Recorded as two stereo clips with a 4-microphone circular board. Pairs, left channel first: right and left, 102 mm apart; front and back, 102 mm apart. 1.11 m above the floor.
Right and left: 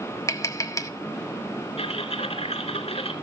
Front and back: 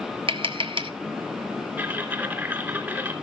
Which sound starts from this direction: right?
Typing on a keyboard, at 1.8 s.